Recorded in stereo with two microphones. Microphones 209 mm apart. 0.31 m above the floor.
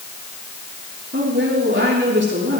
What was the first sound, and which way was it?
A woman speaking, 65° right (ahead or behind).